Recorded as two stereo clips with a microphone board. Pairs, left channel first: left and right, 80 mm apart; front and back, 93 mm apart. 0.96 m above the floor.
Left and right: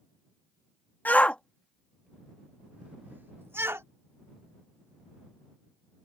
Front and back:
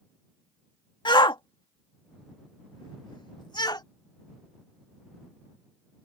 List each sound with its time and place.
1.1 s a shout: 25° left; by 3.9 s 35° right